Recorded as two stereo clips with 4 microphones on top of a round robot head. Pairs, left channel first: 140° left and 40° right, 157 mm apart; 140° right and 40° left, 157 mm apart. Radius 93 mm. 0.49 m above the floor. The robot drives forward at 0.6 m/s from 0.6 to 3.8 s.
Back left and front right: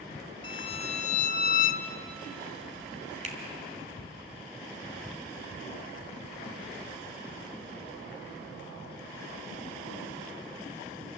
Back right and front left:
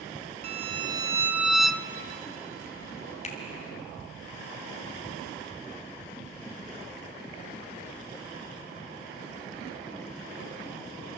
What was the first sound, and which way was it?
A violin, 85° left.